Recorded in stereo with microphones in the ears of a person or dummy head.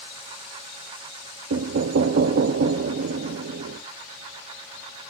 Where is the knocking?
55° right (ahead or behind), 0.6 m.